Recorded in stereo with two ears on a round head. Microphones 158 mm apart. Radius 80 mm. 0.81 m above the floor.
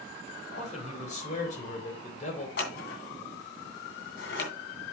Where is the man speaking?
40° left (ahead or behind), 3 m.